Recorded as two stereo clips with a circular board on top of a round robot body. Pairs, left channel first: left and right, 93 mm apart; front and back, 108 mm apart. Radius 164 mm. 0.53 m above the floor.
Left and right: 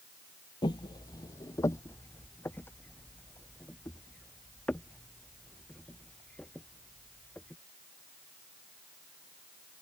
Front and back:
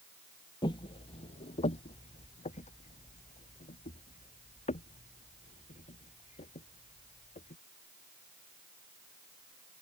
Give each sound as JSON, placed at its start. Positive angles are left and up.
{"t": 0.6, "sound": "footsteps", "azimuth_deg": 50}